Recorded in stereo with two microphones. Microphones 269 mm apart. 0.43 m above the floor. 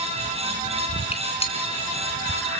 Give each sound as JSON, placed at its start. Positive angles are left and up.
{"t": 1.1, "sound": "a gunshot", "side_deg": 20, "distance_m": 3.0}